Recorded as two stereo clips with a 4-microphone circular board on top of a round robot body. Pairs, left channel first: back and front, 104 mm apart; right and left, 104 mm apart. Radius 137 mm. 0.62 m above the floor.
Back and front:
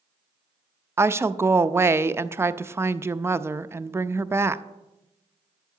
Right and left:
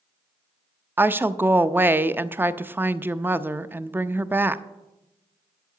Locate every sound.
1.0 s a woman speaking: 40° left, 0.6 m